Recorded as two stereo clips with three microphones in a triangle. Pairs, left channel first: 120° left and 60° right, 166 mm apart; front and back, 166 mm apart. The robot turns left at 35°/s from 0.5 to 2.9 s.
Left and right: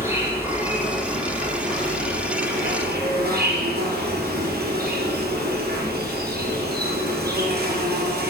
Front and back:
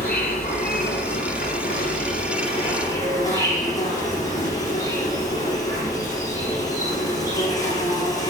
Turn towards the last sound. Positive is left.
turn(degrees=-70)